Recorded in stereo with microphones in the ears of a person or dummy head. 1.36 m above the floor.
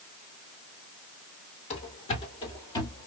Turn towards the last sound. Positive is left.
turn(degrees=20)  # may be behind; listen again after turning